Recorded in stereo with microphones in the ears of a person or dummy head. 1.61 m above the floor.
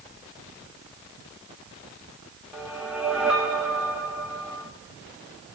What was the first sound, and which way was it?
A whoosh, 5° right (ahead or behind).